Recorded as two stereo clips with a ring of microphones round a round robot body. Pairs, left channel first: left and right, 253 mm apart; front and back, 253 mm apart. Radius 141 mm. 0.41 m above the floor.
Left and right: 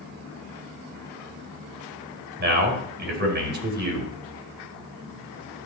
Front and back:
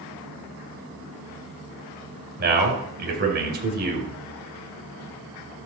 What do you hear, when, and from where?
2.4 s a man speaking: 135° right, 3.5 m